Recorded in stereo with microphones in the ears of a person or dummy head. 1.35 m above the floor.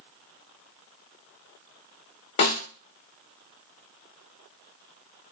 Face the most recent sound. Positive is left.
turn(degrees=35)  # may be behind; listen again after turning